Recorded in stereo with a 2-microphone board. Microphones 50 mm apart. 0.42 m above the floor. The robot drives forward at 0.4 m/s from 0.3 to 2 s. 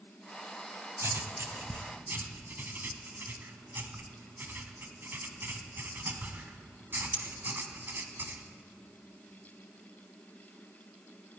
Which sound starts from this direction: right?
Writing, at 1.0 s.